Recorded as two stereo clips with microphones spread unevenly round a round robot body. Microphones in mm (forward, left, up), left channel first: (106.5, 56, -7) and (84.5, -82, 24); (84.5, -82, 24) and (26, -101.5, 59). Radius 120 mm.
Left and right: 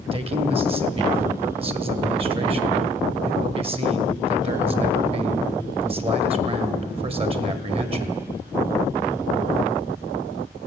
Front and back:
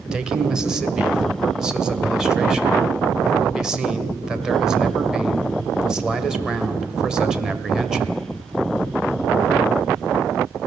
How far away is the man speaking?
About 2.0 m.